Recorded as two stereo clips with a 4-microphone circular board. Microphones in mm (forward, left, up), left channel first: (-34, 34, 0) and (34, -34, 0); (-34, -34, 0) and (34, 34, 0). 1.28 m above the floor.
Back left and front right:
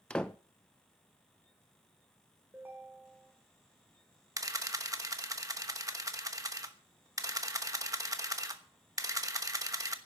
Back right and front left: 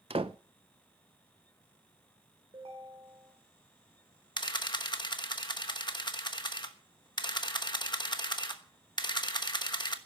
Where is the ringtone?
25° left, 3 m.